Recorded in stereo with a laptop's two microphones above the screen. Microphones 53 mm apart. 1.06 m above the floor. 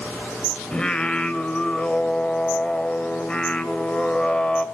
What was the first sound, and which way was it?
Singing, 15° left (ahead or behind).